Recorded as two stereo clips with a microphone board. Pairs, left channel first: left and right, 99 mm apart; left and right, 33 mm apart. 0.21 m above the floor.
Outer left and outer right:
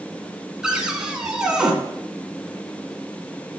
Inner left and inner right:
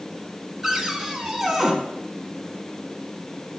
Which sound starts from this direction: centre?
A cupboard door, at 0.6 s.